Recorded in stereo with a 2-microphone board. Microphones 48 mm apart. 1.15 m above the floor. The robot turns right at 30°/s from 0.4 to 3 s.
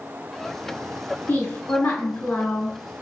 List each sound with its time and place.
1.3 s a woman speaking: 115° left, 1.7 m; by 2.8 s 160° left, 1.7 m